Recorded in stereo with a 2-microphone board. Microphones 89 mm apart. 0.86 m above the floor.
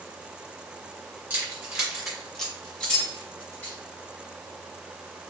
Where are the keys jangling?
20° right (ahead or behind), 2.0 m; by 3.8 s 25° left (ahead or behind), 3 m.